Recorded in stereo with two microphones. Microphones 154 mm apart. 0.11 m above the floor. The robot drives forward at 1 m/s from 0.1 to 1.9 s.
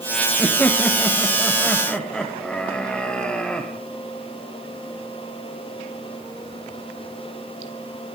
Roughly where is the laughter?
Centre.